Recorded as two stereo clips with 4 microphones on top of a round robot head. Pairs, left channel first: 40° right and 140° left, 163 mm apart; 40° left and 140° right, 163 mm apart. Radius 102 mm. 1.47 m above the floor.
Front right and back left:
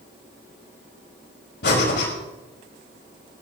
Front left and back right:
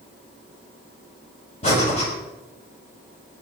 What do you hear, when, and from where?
1.6 s breathing: 15° right, 5 m